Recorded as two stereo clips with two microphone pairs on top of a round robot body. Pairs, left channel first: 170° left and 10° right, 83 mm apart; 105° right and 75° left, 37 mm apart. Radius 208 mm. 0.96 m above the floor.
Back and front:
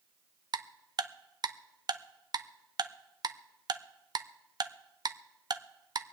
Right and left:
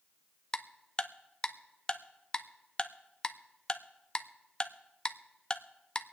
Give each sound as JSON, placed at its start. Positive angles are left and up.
{"t": 0.5, "sound": "ticking", "azimuth_deg": -40, "distance_m": 0.7}